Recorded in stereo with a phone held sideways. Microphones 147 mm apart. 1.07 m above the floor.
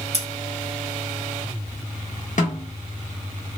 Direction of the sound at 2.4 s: 60° left (ahead or behind).